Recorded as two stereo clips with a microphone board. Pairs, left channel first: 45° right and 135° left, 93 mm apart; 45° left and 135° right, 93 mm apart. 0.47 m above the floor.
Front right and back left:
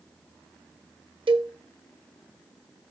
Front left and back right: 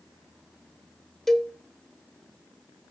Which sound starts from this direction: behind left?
A cowbell, at 1.3 s.